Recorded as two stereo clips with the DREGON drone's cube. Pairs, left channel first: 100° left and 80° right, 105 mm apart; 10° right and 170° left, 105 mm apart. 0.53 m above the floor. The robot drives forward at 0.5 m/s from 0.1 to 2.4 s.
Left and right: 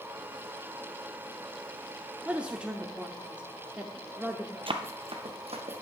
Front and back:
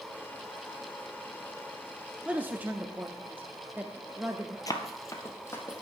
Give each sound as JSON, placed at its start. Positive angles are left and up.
{"t": 2.2, "sound": "a man speaking", "azimuth_deg": -130, "distance_m": 0.7}
{"t": 4.7, "sound": "running footsteps", "azimuth_deg": -60, "distance_m": 0.9}